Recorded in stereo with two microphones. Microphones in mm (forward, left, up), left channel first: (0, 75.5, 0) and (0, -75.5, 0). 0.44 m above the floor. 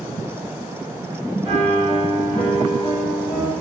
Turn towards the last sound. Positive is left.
turn(degrees=-35)  # may be behind; listen again after turning